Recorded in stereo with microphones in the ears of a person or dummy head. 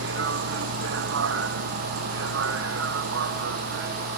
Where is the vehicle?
75° right (ahead or behind); by 4.2 s 60° right (ahead or behind).